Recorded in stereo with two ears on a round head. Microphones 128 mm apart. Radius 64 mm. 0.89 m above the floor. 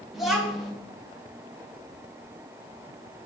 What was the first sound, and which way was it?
A child speaking, centre (ahead or behind).